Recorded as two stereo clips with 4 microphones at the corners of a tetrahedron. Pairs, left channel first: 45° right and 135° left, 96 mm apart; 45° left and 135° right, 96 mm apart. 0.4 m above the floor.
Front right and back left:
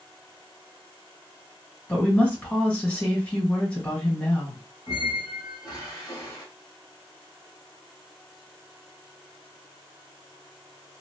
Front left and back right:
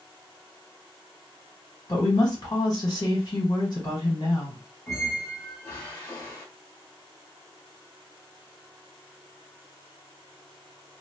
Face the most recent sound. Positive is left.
turn(degrees=-10)